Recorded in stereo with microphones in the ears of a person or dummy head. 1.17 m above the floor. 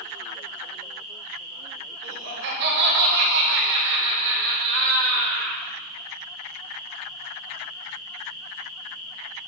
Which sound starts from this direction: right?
Laughter, at 2.0 s.